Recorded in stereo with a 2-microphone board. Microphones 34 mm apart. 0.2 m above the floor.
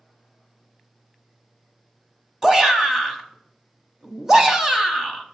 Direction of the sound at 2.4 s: 15° right (ahead or behind).